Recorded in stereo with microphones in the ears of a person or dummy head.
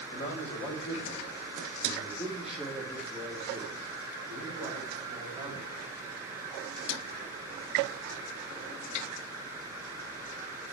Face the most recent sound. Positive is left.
turn(degrees=-25)  # may be behind; listen again after turning